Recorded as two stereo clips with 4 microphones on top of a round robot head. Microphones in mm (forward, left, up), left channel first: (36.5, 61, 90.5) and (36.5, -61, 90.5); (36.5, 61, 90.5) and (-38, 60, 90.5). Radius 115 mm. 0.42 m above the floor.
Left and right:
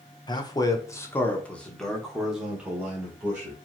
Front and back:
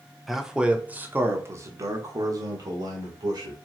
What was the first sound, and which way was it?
A man speaking, 95° left.